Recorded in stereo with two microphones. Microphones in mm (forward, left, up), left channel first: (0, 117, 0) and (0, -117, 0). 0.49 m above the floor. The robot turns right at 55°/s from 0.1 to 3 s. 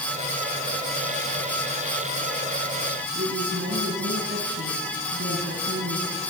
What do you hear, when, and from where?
3.1 s a woman speaking: 60° right (ahead or behind), 4 m